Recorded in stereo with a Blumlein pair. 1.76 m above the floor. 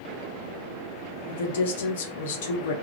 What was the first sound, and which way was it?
A woman speaking, 60° left.